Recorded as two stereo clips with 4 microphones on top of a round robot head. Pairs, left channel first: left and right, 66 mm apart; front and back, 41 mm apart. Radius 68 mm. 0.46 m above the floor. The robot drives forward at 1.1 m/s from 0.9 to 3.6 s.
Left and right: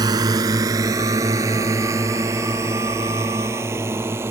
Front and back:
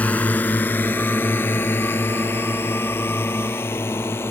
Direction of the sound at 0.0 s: 60° right.